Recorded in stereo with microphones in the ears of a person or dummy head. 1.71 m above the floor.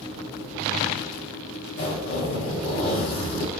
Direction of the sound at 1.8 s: 55° left (ahead or behind).